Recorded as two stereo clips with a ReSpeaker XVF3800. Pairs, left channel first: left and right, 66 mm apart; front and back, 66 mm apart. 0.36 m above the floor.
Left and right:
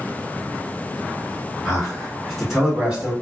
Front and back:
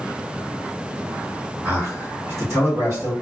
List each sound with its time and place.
1.6 s a man speaking: 170° left, 2.0 m; by 3.1 s 165° right, 2 m